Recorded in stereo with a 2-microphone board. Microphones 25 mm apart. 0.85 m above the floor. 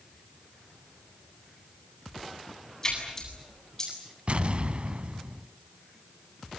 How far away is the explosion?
About 1.0 m.